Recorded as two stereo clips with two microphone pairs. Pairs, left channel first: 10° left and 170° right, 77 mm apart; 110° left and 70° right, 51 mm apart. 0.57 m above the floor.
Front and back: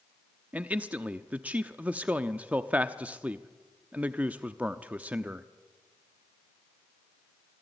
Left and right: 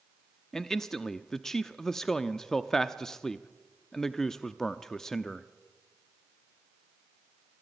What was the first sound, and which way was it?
A man speaking, 175° left.